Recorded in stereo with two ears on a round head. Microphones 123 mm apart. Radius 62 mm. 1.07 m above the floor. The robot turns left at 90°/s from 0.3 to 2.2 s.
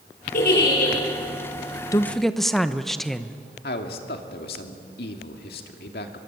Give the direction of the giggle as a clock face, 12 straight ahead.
8 o'clock.